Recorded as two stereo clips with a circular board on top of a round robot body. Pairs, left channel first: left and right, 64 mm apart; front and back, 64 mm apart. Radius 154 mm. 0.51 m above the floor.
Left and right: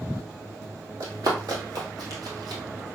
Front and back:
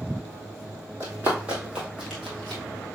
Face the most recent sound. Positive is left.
turn(degrees=-80)